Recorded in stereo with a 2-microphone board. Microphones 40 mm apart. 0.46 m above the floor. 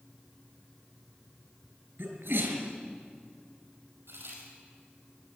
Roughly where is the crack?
Right.